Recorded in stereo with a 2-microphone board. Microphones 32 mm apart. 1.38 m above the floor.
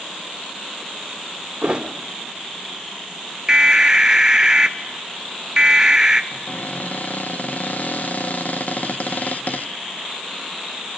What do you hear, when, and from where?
1.6 s a thud: 35° right (ahead or behind), 2.0 m
3.5 s an alarm: 20° right (ahead or behind), 0.9 m
6.3 s a cupboard door: 60° left (ahead or behind), 0.9 m